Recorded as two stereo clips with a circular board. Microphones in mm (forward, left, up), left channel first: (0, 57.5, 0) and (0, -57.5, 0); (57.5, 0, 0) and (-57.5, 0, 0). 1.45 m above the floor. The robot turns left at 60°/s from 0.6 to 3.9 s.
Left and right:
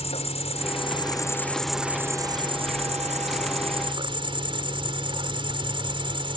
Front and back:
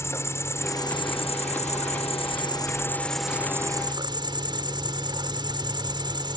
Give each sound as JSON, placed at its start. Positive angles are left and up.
{"t": 0.0, "sound": "an insect", "azimuth_deg": 65}